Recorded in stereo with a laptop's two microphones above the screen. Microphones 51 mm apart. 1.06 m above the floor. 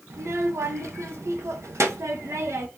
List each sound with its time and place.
0.1 s a child speaking: 75° right (ahead or behind), 0.7 m